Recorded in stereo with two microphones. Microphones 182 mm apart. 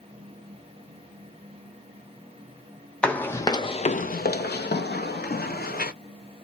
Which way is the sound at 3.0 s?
5° left (ahead or behind).